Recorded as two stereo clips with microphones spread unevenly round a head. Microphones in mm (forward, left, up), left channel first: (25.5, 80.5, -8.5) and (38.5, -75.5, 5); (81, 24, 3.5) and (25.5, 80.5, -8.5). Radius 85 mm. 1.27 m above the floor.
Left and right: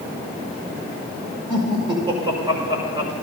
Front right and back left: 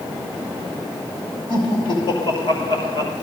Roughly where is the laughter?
Ahead right.